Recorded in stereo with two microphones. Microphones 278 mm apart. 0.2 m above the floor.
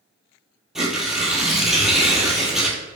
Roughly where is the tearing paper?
Centre.